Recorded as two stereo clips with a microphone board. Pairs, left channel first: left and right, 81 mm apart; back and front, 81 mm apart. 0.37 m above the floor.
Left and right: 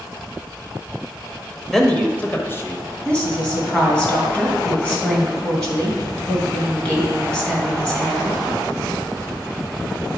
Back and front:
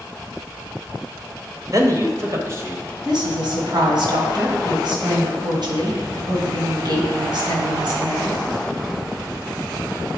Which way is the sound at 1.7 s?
5° left.